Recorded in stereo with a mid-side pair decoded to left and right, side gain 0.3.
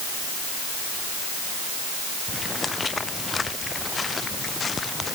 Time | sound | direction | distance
2.3 | footsteps | 45° left | ?